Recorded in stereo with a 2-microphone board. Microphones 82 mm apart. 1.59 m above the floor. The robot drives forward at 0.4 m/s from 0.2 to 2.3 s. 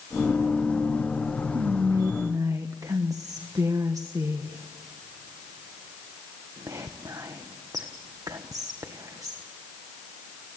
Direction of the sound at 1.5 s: 55° right (ahead or behind).